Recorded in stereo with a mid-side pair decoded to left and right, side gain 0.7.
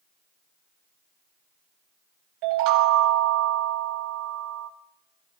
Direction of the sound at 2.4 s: 65° right.